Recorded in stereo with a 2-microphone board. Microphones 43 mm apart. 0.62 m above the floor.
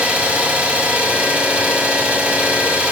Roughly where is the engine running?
Right.